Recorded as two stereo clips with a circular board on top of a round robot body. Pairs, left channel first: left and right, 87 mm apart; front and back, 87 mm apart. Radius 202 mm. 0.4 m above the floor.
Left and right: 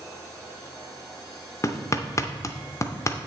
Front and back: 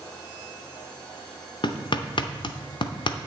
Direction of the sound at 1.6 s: 30° left.